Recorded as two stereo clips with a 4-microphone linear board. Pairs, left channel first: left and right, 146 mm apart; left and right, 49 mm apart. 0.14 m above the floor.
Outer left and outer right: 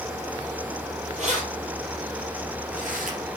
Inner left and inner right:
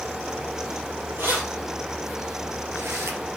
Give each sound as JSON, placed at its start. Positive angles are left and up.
{"t": 1.2, "sound": "keys jangling", "side_deg": -55, "distance_m": 2.5}